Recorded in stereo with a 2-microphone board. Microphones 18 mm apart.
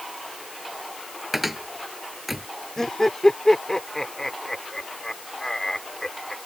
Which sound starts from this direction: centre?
A cupboard door, at 1.3 s.